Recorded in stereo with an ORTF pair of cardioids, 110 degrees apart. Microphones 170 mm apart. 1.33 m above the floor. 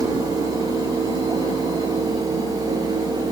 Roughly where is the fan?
Ahead right.